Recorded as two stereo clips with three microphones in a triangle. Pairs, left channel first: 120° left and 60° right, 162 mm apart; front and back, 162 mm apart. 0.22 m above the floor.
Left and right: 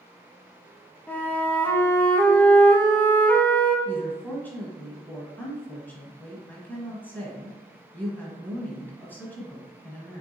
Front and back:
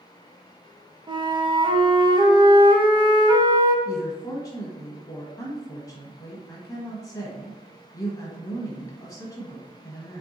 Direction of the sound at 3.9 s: 50° left.